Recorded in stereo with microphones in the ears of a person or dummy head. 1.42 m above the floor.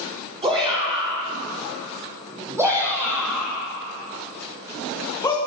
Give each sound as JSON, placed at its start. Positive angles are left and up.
{"t": 0.4, "sound": "a shout", "side_deg": -30, "distance_m": 5.0}